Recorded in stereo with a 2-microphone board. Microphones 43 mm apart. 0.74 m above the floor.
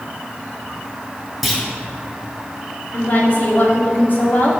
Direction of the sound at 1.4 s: Centre (ahead or behind).